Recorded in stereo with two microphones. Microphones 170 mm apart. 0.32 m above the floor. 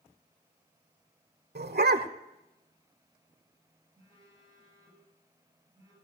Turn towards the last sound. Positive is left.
turn(degrees=-25)  # may be behind; listen again after turning